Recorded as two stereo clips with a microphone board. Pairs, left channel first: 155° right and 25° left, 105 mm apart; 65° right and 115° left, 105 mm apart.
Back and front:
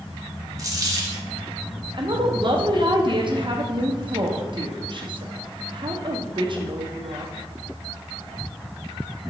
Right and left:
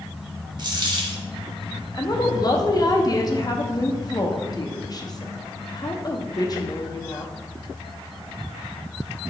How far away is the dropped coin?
About 0.8 m.